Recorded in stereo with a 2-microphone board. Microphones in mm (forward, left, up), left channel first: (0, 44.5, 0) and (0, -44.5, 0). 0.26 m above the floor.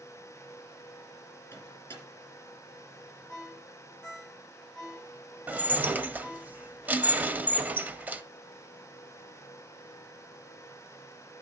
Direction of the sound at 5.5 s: 20° right (ahead or behind).